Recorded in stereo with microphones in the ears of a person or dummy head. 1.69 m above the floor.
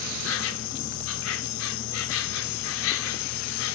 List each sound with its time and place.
0.0 s an insect: 65° left (ahead or behind), 0.9 m